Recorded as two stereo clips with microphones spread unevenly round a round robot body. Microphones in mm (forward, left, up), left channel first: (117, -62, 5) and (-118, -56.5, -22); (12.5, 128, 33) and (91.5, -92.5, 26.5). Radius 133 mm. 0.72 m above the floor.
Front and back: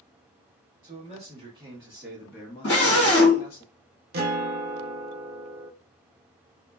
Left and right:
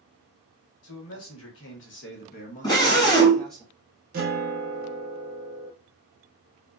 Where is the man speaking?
125° left, 1.3 m; by 3.6 s 15° left, 1.0 m.